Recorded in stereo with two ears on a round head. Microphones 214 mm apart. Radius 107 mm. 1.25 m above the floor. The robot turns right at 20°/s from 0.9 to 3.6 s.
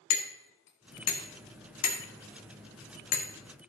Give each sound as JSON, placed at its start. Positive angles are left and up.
{"t": 0.1, "sound": "hammering", "side_deg": 75, "distance_m": 1.7}